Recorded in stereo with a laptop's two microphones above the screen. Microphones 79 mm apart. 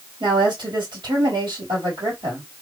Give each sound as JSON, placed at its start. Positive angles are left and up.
{"t": 0.2, "sound": "a woman speaking", "side_deg": -80, "distance_m": 1.9}